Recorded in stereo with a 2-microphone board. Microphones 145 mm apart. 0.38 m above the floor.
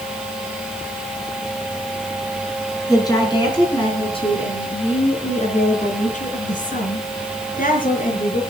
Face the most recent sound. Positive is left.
turn(degrees=80)